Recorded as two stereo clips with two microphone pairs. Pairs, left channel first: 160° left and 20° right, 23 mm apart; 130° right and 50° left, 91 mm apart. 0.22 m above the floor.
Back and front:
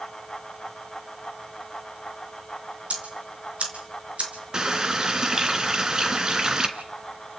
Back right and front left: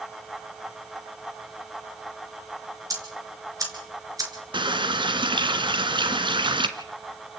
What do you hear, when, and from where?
2.9 s ticking: straight ahead, 4.5 m
4.5 s a running tap: 35° left, 1.8 m